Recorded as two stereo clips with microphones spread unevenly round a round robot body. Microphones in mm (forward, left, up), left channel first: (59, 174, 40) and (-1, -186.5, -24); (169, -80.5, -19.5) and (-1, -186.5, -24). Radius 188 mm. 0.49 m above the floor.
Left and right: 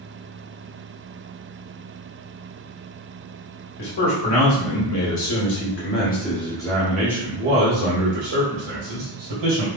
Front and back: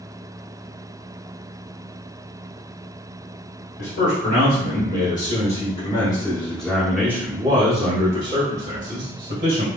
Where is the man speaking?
55° left, 1.8 m; by 9.7 s 115° right, 1.9 m.